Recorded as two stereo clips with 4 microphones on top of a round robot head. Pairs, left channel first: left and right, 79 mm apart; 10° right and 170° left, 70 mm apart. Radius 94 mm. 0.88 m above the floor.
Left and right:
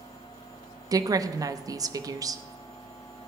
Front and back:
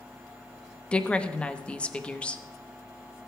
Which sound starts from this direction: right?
A woman speaking, at 0.9 s.